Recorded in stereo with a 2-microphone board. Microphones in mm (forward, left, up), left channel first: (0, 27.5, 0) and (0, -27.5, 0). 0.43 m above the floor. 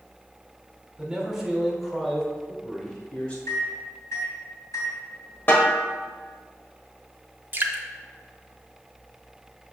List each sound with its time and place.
1.0 s a man speaking: 15° right (ahead or behind), 1.4 m; by 3.4 s 25° left (ahead or behind), 1.8 m
3.5 s a microwave: 70° left (ahead or behind), 2.5 m
5.5 s a snare drum: 40° left (ahead or behind), 1.2 m
7.5 s dripping: 40° right (ahead or behind), 0.8 m